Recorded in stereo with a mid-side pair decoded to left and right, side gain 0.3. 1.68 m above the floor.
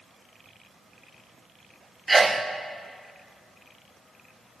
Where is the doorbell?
I don't hear a doorbell.